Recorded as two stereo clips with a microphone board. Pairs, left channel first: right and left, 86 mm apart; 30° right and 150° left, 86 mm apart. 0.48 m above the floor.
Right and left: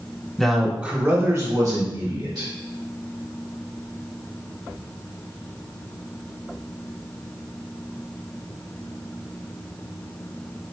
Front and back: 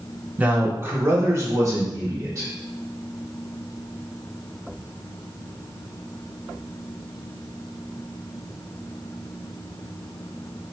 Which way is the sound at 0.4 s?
165° right.